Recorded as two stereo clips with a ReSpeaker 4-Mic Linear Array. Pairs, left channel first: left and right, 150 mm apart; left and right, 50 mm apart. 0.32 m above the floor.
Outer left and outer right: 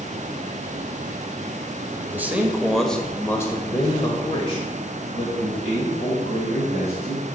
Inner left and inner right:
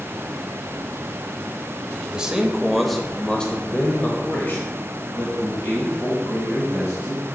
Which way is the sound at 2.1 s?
15° right (ahead or behind).